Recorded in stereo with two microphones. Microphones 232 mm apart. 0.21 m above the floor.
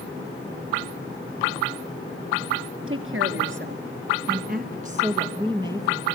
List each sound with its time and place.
2.9 s a woman speaking: 65° right (ahead or behind), 3.5 m; by 6.1 s 10° right (ahead or behind), 3 m